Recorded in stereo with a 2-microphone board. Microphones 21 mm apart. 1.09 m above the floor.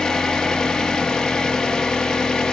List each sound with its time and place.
0.0 s an engine running: 35° left (ahead or behind), 1.6 m